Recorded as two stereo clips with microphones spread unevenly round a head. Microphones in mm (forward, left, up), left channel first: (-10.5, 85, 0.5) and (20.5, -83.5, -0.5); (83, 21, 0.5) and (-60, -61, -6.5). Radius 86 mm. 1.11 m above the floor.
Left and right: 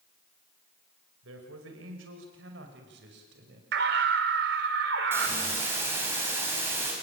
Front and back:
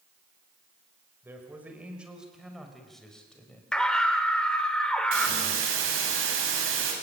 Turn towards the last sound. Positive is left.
turn(degrees=-155)